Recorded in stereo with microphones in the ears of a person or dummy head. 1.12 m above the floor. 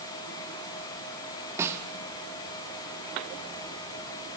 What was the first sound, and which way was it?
A snare drum, 15° right (ahead or behind).